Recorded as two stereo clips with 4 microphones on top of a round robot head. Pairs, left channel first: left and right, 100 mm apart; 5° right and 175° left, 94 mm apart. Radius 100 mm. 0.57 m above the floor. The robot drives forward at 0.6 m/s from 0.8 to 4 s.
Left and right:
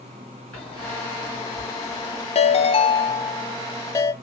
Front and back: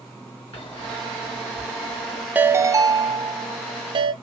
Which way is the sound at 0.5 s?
10° left.